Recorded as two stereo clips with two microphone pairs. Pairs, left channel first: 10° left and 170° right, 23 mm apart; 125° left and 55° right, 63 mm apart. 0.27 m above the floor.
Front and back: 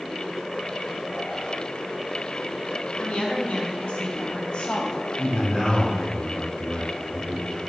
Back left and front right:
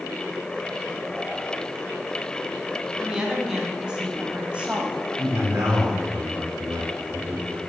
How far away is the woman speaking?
About 2.5 m.